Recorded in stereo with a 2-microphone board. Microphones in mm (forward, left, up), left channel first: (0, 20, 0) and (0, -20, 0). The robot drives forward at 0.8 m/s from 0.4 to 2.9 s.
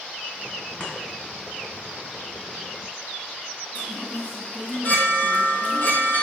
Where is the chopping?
45° left (ahead or behind), 2 m.